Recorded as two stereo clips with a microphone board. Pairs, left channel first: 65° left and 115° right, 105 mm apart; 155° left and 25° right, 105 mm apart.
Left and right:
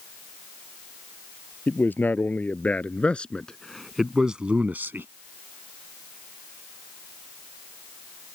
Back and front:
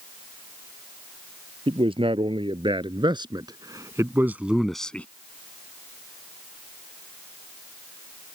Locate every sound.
1.7 s a man speaking: straight ahead; by 5.1 s 145° right